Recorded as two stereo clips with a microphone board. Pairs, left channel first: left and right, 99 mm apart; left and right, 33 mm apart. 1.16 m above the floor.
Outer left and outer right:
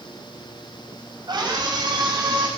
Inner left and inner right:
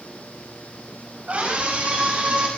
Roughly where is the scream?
Right.